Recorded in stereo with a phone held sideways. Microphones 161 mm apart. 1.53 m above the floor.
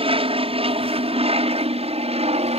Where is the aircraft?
35° right (ahead or behind); by 2.6 s 40° right (ahead or behind).